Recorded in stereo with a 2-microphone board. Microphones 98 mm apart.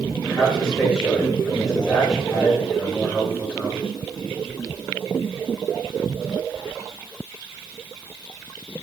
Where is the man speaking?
5° left (ahead or behind), 2 m.